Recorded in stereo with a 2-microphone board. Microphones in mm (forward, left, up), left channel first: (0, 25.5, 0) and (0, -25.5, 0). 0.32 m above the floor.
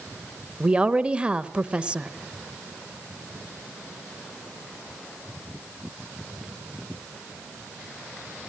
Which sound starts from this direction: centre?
A woman speaking, at 0.6 s.